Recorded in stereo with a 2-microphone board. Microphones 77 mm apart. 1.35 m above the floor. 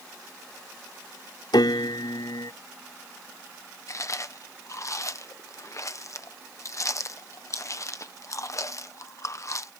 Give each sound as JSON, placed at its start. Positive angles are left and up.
{"t": 1.5, "sound": "a piano", "side_deg": 85}
{"t": 3.9, "sound": "chewing", "side_deg": 45}